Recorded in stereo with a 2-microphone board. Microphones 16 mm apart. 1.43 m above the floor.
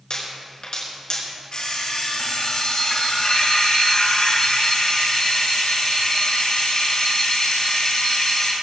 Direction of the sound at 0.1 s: 55° left (ahead or behind).